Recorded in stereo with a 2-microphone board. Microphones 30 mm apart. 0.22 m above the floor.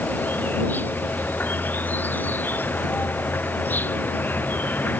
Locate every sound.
0.0 s an insect: 85° left